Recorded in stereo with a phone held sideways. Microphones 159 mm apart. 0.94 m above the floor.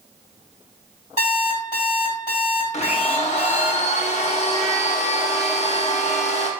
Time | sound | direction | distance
1.2 | an alarm clock | 50° right (ahead or behind) | 2.0 m
2.7 | a blender | 45° left (ahead or behind) | 0.5 m